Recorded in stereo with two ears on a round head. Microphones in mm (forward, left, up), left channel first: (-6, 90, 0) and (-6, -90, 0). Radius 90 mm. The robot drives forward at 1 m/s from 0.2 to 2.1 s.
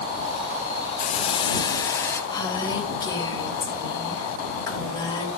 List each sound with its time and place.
1.0 s a hiss: 45° left (ahead or behind), 0.6 m; by 2.2 s 15° left (ahead or behind), 1.5 m
2.3 s a woman speaking: 20° left (ahead or behind), 3 m